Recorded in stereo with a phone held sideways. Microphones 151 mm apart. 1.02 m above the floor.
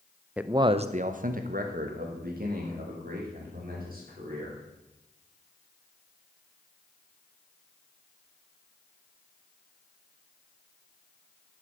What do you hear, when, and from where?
0.4 s a man speaking: 5° right (ahead or behind), 0.5 m; by 4.6 s 70° right (ahead or behind), 3.5 m